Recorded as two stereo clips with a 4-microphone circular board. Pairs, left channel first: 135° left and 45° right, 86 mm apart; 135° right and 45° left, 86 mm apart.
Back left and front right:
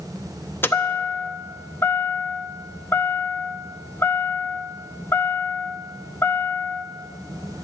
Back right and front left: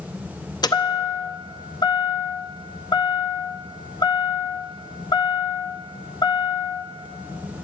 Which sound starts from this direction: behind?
A chime, at 0.6 s.